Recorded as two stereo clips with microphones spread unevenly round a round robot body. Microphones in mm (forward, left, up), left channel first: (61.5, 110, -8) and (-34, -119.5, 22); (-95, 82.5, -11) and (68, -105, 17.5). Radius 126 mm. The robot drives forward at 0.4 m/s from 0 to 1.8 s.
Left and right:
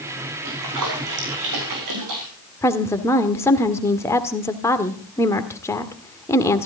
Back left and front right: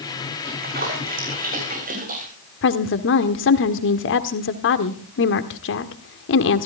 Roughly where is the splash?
Right.